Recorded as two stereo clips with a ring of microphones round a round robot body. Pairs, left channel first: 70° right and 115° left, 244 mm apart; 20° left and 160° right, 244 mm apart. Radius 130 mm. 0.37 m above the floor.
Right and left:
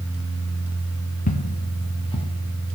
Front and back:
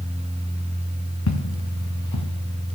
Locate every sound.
1.3 s footsteps: 10° right, 2.5 m; by 2.3 s straight ahead, 2.5 m